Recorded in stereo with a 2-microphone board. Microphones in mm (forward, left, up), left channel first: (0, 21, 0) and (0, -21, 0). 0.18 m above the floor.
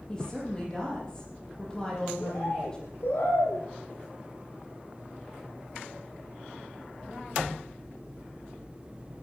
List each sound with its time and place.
0.1 s a woman speaking: 20° left (ahead or behind), 7.5 m
2.2 s a bird: 65° left (ahead or behind), 9 m